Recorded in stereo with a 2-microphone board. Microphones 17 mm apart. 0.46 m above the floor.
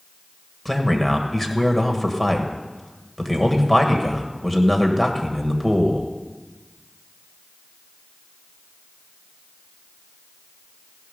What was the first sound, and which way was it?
A man speaking, 10° left (ahead or behind).